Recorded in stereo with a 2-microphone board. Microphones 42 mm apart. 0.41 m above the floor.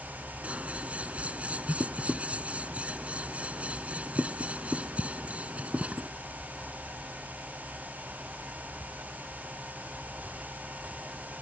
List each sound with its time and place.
0.4 s scissors: 30° right (ahead or behind)